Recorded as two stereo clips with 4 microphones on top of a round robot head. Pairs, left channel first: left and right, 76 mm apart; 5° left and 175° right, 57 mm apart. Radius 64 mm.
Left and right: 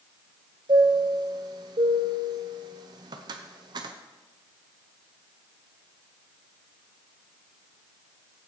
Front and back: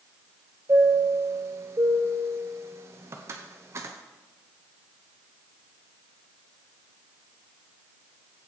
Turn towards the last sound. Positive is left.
turn(degrees=-125)